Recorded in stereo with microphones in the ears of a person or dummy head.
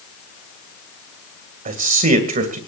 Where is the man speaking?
55° right (ahead or behind), 2 m.